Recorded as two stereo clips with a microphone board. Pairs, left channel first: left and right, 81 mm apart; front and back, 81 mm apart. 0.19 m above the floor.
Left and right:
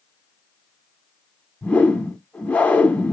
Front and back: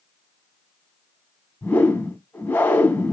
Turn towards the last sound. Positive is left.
turn(degrees=40)